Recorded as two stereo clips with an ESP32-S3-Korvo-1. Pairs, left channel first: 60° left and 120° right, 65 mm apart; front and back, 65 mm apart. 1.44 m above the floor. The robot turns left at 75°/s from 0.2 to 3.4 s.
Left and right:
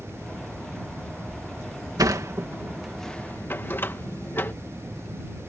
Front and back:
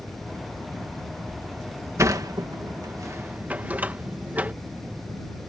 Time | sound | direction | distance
2.0 | a sliding door | 140° right | ?